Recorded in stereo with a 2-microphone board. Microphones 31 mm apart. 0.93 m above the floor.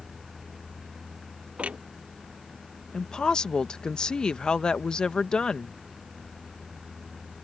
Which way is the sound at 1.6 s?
40° right (ahead or behind).